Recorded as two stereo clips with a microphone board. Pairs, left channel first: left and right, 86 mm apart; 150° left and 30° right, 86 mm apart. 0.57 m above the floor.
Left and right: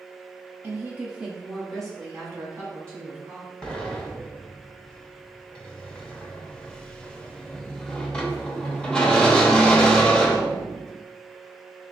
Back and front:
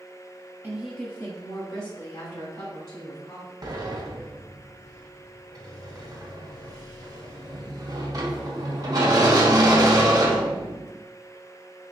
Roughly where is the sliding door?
Ahead.